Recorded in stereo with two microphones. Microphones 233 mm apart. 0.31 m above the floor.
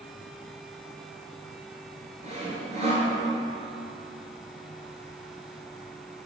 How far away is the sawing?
About 1.6 m.